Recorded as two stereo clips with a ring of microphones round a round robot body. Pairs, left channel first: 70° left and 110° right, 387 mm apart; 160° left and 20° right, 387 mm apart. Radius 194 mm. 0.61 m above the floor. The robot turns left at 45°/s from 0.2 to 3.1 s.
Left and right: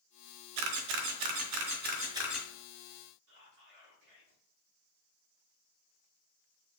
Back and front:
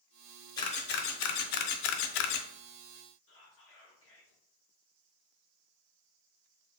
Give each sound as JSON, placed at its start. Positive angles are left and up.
{"t": 0.6, "sound": "a camera shutter", "azimuth_deg": -120, "distance_m": 0.6}
{"t": 3.3, "sound": "whispering", "azimuth_deg": -150, "distance_m": 1.1}